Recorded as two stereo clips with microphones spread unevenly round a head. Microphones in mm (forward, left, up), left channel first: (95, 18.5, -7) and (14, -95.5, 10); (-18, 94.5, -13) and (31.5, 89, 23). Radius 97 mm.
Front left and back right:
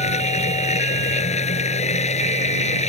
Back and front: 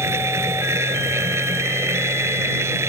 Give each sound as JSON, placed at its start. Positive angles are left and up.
{"t": 0.0, "sound": "a machine running", "azimuth_deg": 15}